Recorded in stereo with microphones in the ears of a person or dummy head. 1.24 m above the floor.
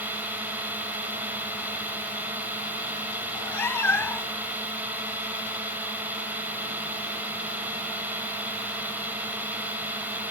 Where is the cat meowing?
10° left (ahead or behind).